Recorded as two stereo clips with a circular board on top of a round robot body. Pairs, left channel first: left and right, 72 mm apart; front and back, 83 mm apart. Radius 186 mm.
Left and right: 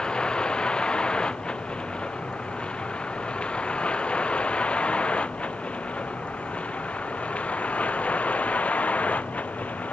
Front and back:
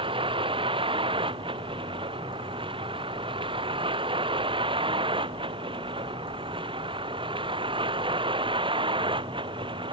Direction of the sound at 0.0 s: 170° left.